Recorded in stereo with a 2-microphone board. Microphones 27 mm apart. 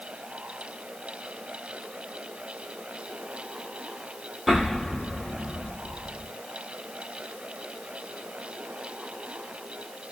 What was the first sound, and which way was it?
An explosion, 10° right (ahead or behind).